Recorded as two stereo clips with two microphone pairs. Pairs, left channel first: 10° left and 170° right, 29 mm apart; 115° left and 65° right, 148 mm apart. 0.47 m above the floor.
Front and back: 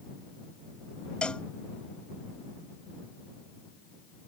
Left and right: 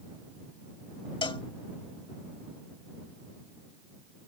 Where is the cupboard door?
I don't hear a cupboard door.